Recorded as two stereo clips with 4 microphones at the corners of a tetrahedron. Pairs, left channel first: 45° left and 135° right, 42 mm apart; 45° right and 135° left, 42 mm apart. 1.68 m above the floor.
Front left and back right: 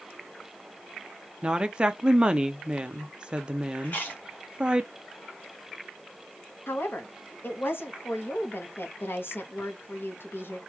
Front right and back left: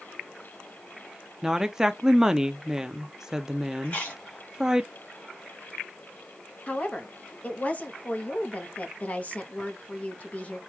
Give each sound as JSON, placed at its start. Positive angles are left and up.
{"t": 1.4, "sound": "a woman speaking", "azimuth_deg": -160, "distance_m": 0.6}
{"t": 3.8, "sound": "chewing", "azimuth_deg": 0, "distance_m": 2.0}
{"t": 6.7, "sound": "a woman speaking", "azimuth_deg": 15, "distance_m": 1.1}